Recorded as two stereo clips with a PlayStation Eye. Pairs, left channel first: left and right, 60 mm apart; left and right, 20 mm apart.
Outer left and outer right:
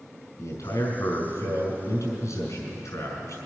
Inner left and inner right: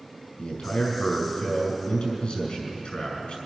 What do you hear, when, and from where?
0.4 s a man speaking: 65° left (ahead or behind), 5 m